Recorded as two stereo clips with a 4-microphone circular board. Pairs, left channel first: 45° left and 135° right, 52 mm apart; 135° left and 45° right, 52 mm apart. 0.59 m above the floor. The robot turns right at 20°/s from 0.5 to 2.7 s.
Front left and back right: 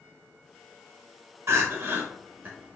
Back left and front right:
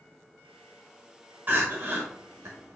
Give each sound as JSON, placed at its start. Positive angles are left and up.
{"t": 1.5, "sound": "crying", "azimuth_deg": -100, "distance_m": 0.8}